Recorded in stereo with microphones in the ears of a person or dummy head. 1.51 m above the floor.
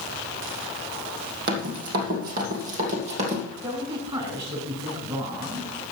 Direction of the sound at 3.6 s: 30° right (ahead or behind).